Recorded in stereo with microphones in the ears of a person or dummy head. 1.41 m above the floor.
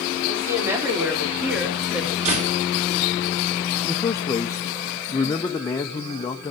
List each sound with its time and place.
0.3 s a woman speaking: 15° right (ahead or behind), 4.5 m; by 2.1 s centre (ahead or behind), 2.5 m
2.2 s a door slam: 40° right (ahead or behind), 2.0 m
3.8 s a man speaking: 20° left (ahead or behind), 0.8 m